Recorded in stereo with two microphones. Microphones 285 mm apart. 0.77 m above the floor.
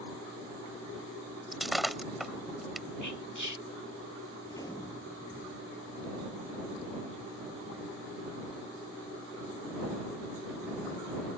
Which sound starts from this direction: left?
Whispering, at 3.0 s.